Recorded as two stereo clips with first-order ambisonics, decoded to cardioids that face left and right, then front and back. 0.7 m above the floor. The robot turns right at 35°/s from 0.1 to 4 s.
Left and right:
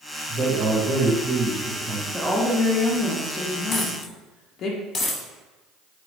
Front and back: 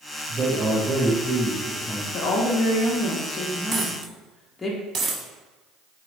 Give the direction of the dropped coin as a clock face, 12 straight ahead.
8 o'clock.